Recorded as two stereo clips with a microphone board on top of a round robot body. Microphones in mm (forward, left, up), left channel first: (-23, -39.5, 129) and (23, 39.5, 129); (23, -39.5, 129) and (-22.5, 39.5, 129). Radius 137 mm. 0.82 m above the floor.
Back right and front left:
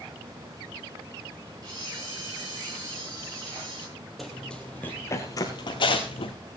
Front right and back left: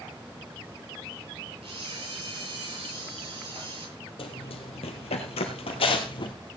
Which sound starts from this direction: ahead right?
Running footsteps, at 4.2 s.